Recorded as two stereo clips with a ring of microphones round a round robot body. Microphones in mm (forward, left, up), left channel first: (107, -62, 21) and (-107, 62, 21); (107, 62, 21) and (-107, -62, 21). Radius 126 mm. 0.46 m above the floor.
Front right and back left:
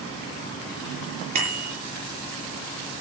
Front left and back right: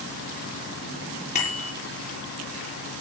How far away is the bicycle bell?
About 8.5 m.